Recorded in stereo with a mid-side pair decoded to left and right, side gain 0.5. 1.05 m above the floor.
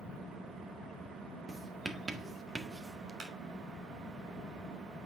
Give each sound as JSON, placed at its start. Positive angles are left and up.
{"t": 1.5, "sound": "writing", "azimuth_deg": -20, "distance_m": 1.5}
{"t": 3.2, "sound": "a clap", "azimuth_deg": -55, "distance_m": 3.0}